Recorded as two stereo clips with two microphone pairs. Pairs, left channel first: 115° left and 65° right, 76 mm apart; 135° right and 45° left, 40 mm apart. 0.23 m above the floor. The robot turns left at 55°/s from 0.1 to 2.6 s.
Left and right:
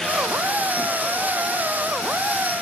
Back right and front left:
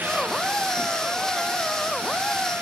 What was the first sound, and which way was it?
Only background noise.